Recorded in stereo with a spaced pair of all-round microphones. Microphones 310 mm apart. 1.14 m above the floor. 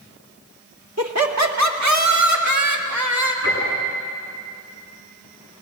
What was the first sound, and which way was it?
Laughter, 60° right (ahead or behind).